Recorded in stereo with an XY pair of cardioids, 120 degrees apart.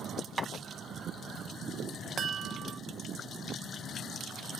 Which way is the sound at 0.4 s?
20° right.